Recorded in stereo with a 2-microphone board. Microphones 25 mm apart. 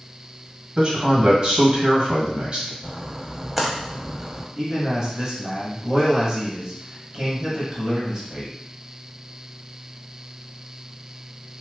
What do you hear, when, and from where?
0.8 s a man speaking: 35° right (ahead or behind), 1.2 m
2.8 s a splash: centre (ahead or behind), 0.7 m
4.6 s a man speaking: 25° right (ahead or behind), 1.6 m